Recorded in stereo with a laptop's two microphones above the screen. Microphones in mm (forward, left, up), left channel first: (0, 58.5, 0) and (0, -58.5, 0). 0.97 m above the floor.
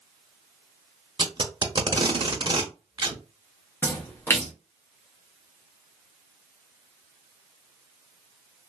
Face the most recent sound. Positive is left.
turn(degrees=20)  # may be behind; listen again after turning